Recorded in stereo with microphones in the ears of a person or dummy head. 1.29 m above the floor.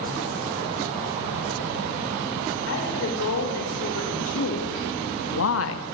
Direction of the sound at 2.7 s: 75° left (ahead or behind).